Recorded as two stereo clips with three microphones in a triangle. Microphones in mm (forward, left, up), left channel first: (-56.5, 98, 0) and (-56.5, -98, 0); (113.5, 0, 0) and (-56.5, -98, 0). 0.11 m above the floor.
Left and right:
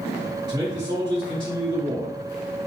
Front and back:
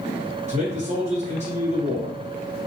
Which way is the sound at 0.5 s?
140° right.